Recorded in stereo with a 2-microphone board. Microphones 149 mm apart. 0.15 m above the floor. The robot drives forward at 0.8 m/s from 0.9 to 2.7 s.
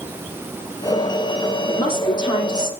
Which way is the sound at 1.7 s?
30° left (ahead or behind).